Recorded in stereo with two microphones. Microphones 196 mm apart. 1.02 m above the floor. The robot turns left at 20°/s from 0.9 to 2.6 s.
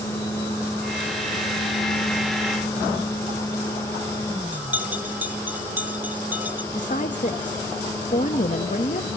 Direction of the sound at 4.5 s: 10° right (ahead or behind).